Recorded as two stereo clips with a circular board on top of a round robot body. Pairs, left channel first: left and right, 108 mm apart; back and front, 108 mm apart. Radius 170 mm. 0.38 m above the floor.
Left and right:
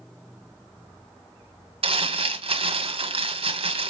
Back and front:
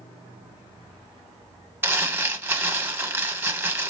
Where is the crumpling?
65° right, 1.7 m.